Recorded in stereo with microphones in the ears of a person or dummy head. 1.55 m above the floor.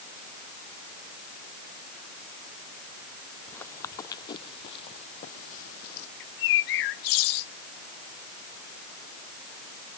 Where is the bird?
65° left (ahead or behind).